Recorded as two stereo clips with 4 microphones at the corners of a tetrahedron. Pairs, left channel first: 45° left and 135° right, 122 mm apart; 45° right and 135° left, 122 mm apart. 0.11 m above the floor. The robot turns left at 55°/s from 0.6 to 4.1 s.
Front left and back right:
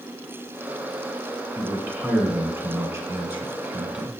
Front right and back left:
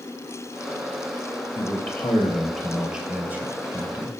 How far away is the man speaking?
About 1.3 m.